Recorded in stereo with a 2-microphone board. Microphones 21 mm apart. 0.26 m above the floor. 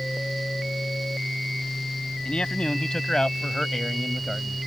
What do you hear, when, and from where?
2.2 s a man speaking: 55° left (ahead or behind); by 4.6 s 10° right (ahead or behind)